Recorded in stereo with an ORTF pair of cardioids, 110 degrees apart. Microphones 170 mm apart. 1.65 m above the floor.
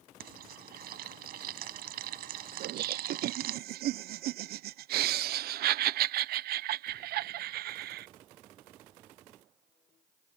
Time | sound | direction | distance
0.2 | frying | 70° right | ?
2.6 | laughter | 65° right | ?